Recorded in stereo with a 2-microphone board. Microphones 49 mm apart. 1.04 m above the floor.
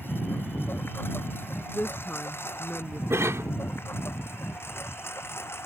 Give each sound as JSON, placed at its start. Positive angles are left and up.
{"t": 0.0, "sound": "a lawn mower", "side_deg": 50}
{"t": 1.7, "sound": "a woman speaking", "side_deg": 35}
{"t": 3.1, "sound": "a cough", "side_deg": -70}